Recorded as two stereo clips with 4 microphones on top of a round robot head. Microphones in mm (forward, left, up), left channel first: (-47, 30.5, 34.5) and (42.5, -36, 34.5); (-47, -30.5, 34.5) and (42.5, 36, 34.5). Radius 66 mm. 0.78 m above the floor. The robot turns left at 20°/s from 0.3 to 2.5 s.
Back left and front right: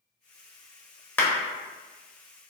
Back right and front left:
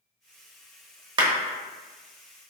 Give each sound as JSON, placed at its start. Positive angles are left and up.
{"t": 1.2, "sound": "a clap", "azimuth_deg": 75, "distance_m": 0.9}